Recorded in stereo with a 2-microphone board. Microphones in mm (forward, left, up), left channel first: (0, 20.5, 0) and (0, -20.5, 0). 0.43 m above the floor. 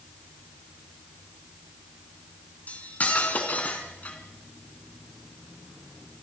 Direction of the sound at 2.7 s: 40° left (ahead or behind).